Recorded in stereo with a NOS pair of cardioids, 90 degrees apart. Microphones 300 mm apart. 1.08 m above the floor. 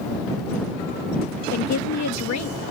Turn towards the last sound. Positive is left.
turn(degrees=65)